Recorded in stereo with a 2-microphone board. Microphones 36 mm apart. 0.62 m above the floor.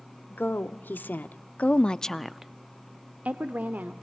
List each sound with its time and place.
0.3 s a woman speaking: 70° left (ahead or behind), 1.6 m; by 3.9 s 55° right (ahead or behind), 1.6 m